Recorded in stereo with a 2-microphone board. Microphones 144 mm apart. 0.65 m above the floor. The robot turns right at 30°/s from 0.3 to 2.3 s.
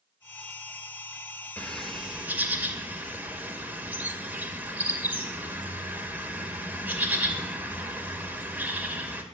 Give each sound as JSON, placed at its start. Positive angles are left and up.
{"t": 1.6, "sound": "a bird", "side_deg": 10, "distance_m": 2.0}